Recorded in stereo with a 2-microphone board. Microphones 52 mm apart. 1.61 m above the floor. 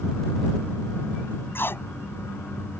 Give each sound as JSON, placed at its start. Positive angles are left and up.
{"t": 1.6, "sound": "tape being pulled", "side_deg": 45}